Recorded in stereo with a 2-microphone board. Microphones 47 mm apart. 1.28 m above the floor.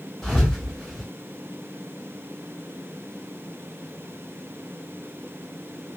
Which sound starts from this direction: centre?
A thud, at 0.2 s.